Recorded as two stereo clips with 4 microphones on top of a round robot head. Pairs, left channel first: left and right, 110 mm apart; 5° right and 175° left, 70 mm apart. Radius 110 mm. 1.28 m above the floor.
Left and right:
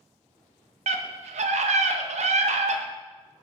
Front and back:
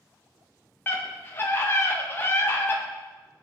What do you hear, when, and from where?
0.9 s a scream: 70° right, 1.7 m